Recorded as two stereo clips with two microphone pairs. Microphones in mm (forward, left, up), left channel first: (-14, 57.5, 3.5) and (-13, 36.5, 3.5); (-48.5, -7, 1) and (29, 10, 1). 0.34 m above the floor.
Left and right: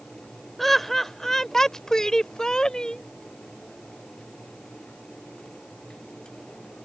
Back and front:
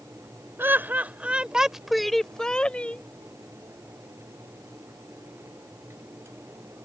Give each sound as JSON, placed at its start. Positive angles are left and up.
{"t": 0.6, "sound": "laughter", "azimuth_deg": 30}